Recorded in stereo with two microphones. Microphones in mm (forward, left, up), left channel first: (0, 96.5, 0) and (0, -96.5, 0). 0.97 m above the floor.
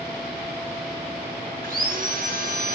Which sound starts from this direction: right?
Sawing, at 1.6 s.